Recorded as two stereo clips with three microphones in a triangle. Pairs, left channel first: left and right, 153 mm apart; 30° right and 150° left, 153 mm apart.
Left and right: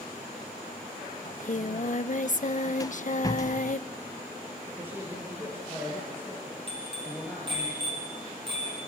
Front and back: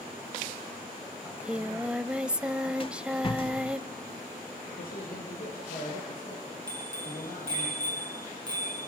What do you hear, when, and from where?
1.2 s singing: 70° left, 0.7 m
2.8 s a rattle: 20° left, 0.7 m
4.8 s a man speaking: 15° right, 6.5 m
6.7 s a bicycle bell: 145° right, 8 m